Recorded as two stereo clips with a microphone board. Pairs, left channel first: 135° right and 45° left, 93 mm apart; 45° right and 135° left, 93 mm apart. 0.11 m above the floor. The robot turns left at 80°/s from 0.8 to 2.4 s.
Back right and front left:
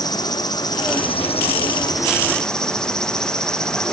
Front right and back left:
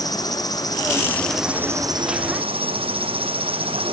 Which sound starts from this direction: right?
An insect, at 0.0 s.